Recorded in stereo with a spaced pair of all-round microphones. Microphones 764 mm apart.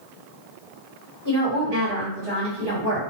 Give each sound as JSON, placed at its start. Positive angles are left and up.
{"t": 1.2, "sound": "a woman speaking", "side_deg": -35, "distance_m": 1.2}